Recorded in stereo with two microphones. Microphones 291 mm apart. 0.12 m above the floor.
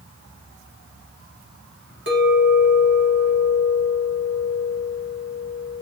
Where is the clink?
45° right (ahead or behind), 1.5 m.